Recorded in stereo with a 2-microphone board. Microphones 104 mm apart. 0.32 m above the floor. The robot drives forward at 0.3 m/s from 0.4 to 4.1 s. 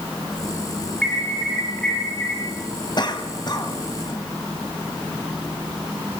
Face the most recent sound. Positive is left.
turn(degrees=40)  # may be behind; listen again after turning